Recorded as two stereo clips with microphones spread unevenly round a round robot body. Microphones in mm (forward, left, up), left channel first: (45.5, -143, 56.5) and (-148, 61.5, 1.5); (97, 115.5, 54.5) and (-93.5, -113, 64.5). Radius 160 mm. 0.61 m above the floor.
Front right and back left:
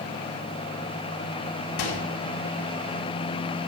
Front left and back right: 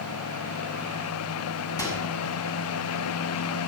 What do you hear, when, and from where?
1.8 s a microwave: 30° right, 5.5 m